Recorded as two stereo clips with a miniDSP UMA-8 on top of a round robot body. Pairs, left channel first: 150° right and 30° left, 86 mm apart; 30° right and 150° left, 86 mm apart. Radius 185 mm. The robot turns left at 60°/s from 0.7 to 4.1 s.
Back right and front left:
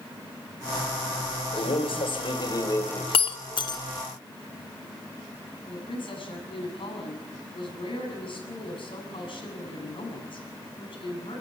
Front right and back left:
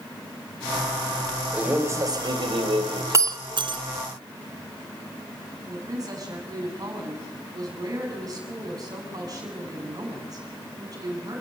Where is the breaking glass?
150° right, 1.0 m; by 3.8 s 165° left, 1.0 m.